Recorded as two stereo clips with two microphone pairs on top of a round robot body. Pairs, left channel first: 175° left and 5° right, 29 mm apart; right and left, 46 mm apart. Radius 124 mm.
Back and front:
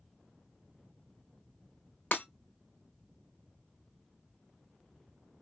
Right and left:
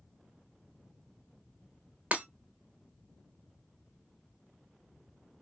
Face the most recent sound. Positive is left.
turn(degrees=150)